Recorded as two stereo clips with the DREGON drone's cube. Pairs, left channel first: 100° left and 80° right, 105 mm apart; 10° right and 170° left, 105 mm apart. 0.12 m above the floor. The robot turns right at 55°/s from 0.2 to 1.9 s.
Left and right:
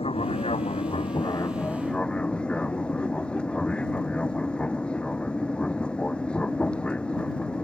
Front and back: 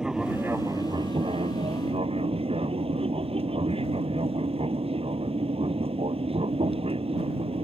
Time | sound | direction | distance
0.0 | an aircraft | 85° left | ?